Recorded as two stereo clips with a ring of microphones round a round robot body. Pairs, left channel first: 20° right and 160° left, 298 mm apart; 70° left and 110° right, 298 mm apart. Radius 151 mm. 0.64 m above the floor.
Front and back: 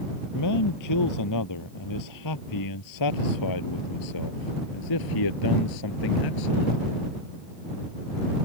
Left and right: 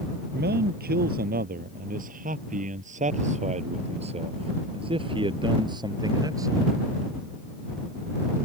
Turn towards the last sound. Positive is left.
turn(degrees=-30)